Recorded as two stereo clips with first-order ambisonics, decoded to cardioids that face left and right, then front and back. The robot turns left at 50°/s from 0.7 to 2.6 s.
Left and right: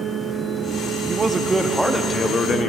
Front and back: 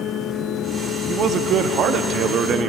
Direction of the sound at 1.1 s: 145° right.